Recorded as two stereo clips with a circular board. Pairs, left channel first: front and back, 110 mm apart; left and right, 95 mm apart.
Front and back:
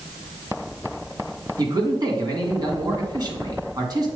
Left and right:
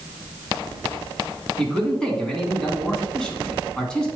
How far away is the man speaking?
About 1.9 m.